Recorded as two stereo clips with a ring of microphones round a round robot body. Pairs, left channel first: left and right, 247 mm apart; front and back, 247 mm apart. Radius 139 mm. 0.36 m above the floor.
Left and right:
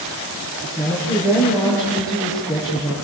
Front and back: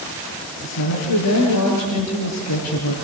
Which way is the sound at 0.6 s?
10° right.